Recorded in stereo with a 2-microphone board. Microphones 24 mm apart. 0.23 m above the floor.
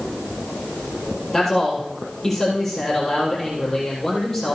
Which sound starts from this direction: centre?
A man speaking, at 1.3 s.